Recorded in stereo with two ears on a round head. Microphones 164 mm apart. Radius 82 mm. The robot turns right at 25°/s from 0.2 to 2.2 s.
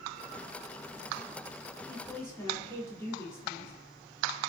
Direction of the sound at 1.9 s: 20° left (ahead or behind).